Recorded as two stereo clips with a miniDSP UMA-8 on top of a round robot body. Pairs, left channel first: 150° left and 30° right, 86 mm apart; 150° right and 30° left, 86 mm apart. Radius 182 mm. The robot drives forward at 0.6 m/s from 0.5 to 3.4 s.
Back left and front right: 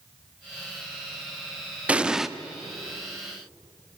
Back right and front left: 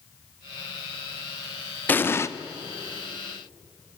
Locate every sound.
1.9 s an explosion: 95° right, 1.2 m; by 2.3 s 115° right, 1.2 m